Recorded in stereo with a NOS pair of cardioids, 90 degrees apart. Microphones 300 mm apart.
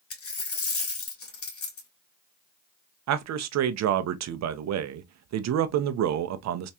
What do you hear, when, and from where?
0.1 s a dropped coin: 50° left, 2 m
3.1 s a man speaking: 65° right, 0.7 m